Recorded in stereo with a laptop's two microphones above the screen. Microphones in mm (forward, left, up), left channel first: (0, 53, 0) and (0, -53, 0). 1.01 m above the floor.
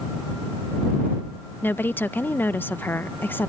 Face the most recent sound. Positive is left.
turn(degrees=20)  # may be behind; listen again after turning